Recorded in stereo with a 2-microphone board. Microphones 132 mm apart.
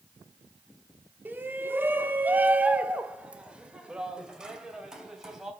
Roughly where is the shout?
Centre.